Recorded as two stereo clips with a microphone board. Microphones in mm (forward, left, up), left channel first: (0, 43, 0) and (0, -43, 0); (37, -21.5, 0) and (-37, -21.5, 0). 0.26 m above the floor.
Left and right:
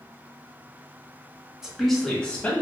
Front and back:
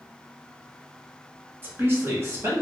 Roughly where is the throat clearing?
I don't hear throat clearing.